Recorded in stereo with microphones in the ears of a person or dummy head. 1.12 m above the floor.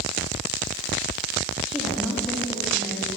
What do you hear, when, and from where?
1.7 s a woman speaking: centre (ahead or behind), 1.9 m